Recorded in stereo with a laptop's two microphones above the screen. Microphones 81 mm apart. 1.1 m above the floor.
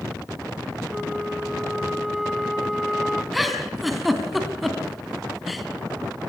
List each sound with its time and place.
0.9 s a flute: centre (ahead or behind), 1.2 m
3.3 s a giggle: centre (ahead or behind), 2.5 m